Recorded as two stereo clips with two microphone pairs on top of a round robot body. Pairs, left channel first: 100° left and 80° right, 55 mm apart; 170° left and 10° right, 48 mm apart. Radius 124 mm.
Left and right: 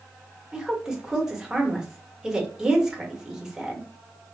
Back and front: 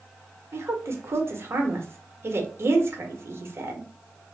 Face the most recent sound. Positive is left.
turn(degrees=0)